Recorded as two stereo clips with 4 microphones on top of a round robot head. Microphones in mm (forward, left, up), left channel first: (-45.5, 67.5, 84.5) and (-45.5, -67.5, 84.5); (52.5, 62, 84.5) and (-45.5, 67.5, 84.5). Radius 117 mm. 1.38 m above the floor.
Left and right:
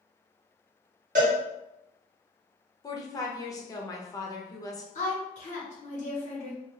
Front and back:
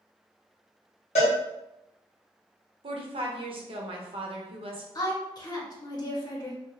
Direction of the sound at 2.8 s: 155° left.